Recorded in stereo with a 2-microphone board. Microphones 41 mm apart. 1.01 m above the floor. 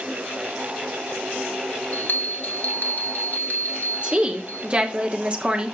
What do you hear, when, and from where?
1.9 s a bell: 50° left (ahead or behind), 1.1 m
4.0 s a woman speaking: 30° right (ahead or behind), 1.0 m